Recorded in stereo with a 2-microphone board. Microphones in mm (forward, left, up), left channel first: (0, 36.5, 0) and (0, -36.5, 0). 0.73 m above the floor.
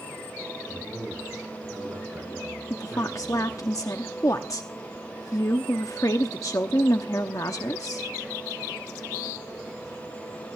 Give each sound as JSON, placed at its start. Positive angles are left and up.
{"t": 0.7, "sound": "a man speaking", "side_deg": -20, "distance_m": 9.0}
{"t": 2.7, "sound": "a woman speaking", "side_deg": 50, "distance_m": 0.9}